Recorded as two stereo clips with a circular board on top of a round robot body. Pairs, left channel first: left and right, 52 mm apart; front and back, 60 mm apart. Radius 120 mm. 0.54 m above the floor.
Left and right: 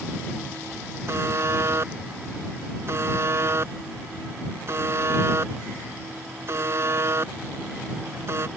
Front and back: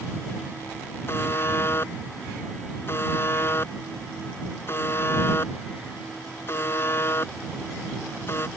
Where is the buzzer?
50° right.